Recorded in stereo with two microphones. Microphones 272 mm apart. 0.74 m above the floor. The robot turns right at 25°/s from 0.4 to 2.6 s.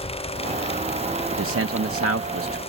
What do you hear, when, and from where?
1.3 s a man speaking: 105° right, 0.7 m; by 2.6 s 70° right, 0.7 m